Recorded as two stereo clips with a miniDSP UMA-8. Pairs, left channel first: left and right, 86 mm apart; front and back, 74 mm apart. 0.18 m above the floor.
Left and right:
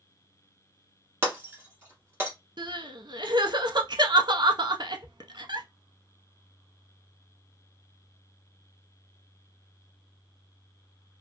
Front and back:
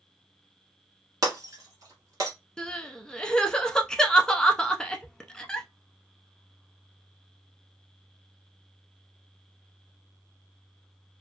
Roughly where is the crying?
Right.